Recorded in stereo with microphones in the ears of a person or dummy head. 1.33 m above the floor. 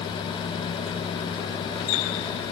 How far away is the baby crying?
I don't hear a baby crying.